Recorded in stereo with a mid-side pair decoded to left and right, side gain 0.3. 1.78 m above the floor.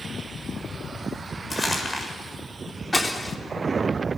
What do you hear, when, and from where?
1.5 s crumpling: 30° left, 7.5 m
2.9 s breaking glass: 20° left, 3.5 m